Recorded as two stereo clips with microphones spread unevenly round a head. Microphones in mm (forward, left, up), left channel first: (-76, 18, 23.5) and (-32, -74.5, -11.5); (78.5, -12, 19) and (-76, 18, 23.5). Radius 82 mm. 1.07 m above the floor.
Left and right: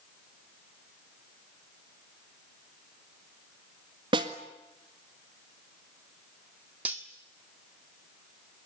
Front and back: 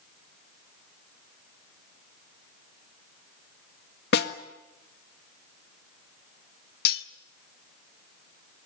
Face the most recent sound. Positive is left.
turn(degrees=20)